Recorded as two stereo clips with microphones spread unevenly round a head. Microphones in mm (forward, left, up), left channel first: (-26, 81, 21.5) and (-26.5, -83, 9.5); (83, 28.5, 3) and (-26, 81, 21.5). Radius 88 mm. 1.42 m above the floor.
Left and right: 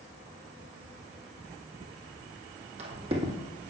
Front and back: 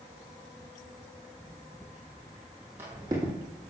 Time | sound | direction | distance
1.8 | footsteps | 100° right | 2.5 m